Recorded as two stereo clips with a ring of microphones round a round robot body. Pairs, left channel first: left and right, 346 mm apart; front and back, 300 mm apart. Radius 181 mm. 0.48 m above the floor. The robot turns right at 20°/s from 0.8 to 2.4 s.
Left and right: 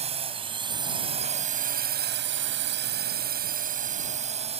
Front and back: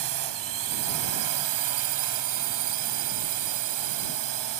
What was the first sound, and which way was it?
A drone, 160° right.